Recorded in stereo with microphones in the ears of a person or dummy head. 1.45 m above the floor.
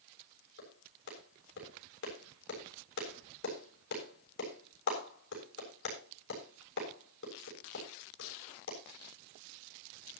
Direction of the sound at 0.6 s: 65° left (ahead or behind).